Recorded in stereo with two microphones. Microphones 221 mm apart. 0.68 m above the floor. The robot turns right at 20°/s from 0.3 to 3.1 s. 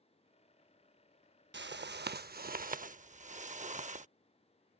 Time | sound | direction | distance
1.5 | a whoosh | 70° right | ?